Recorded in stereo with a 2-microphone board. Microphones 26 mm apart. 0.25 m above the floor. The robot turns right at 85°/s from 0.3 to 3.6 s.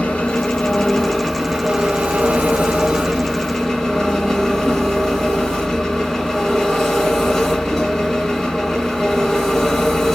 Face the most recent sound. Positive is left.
turn(degrees=15)